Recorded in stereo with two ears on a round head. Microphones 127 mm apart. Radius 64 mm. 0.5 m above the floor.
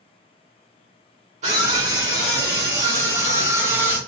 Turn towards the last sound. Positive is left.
turn(degrees=-15)  # may be behind; listen again after turning